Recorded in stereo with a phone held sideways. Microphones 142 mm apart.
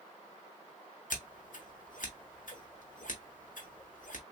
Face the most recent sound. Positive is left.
turn(degrees=70)  # may be behind; listen again after turning